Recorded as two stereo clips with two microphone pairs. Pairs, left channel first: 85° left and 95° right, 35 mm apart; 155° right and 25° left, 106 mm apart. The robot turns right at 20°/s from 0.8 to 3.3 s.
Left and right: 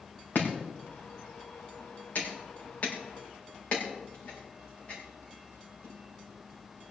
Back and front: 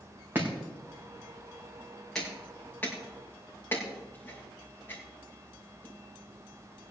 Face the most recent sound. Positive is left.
turn(degrees=140)